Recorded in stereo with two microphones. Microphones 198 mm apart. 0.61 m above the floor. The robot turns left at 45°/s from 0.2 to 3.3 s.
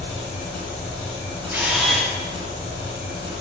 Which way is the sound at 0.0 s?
65° left.